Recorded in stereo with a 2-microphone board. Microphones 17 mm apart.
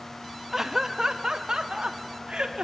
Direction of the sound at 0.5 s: 20° right (ahead or behind).